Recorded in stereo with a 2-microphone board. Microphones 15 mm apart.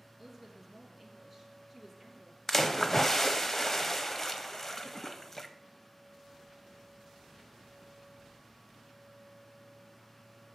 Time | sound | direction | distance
0.2 | a woman speaking | 5° left (ahead or behind) | 3 m
2.5 | a splash | 25° left (ahead or behind) | 0.9 m